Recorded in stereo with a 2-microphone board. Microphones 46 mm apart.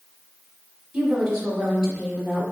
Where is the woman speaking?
15° right (ahead or behind), 1.0 m.